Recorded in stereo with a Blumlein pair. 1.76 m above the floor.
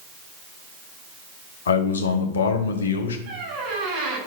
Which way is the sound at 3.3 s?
40° right.